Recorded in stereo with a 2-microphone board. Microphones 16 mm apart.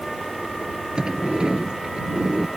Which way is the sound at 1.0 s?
75° right (ahead or behind).